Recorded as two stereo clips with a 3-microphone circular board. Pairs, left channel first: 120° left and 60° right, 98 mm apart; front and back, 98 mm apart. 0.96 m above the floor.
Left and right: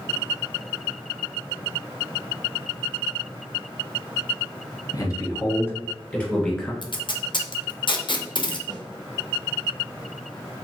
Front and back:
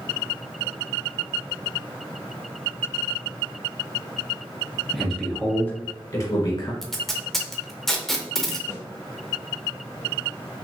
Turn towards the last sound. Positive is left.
turn(degrees=-55)